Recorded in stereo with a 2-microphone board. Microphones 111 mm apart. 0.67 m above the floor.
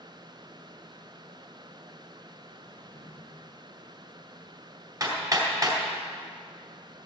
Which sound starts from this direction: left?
A drawer, at 2.7 s.